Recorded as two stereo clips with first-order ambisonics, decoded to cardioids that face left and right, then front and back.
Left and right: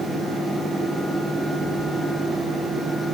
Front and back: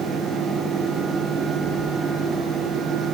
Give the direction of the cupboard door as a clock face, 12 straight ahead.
I don't hear a cupboard door.